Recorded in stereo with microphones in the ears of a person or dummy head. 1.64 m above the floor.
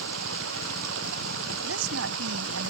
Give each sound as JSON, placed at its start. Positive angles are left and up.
{"t": 0.0, "sound": "running water", "side_deg": -85}
{"t": 1.6, "sound": "a woman speaking", "side_deg": -85}